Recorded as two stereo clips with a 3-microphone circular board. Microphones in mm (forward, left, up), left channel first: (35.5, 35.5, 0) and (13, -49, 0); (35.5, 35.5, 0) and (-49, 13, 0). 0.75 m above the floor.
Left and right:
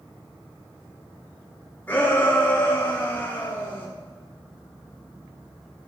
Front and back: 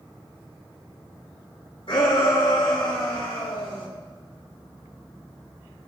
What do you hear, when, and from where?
1.9 s a shout: 5° left, 4.5 m; by 3.9 s 10° left, 5.5 m